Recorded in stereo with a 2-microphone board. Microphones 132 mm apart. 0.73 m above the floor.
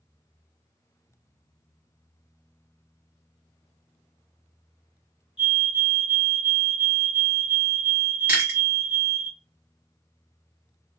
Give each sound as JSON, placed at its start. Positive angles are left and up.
{"t": 5.4, "sound": "a fire alarm", "side_deg": -5, "distance_m": 1.3}
{"t": 8.3, "sound": "chewing", "side_deg": -10, "distance_m": 1.7}